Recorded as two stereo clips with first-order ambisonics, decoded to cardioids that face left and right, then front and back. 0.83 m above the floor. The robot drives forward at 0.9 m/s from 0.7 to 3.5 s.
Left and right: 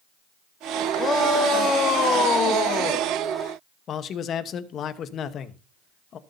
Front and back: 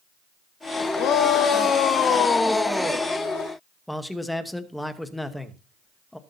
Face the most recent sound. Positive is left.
turn(degrees=85)